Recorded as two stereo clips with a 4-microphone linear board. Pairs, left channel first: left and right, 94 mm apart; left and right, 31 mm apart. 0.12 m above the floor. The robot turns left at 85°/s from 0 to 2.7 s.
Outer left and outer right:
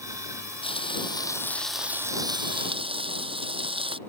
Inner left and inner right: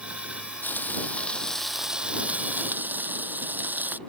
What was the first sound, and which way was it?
Frying, 95° left.